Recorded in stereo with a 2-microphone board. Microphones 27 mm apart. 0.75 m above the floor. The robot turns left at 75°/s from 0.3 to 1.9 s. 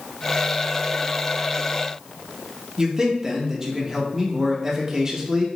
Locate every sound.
2.8 s a man speaking: 15° right (ahead or behind), 0.8 m